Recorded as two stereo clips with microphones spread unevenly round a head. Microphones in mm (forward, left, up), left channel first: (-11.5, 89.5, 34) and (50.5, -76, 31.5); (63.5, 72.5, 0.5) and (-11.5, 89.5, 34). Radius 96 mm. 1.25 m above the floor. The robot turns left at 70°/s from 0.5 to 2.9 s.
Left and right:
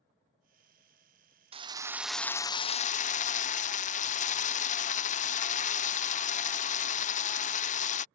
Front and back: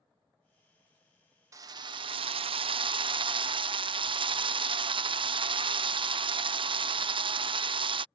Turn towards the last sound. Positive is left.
turn(degrees=145)